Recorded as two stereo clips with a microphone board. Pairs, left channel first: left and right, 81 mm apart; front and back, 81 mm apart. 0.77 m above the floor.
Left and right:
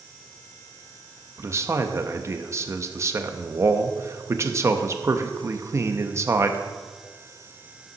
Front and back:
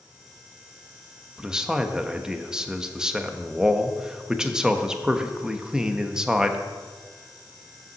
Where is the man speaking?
105° right, 0.7 m.